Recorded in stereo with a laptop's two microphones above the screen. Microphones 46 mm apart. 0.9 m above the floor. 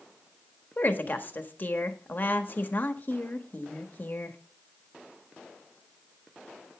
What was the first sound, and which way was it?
A woman speaking, 40° left (ahead or behind).